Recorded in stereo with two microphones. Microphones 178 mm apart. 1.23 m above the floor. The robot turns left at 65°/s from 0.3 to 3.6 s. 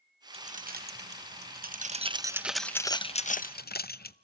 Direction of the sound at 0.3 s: 35° right (ahead or behind).